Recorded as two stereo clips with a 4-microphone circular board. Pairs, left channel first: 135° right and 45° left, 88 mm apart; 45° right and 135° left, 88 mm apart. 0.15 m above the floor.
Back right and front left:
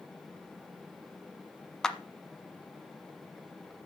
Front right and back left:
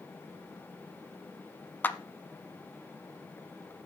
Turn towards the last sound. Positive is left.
turn(degrees=-65)